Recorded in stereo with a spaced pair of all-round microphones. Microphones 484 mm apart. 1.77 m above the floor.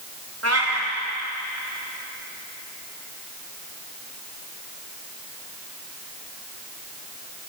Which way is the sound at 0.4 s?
30° right (ahead or behind).